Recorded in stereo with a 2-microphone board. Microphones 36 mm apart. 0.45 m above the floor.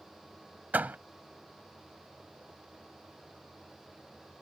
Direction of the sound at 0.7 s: 55° right (ahead or behind).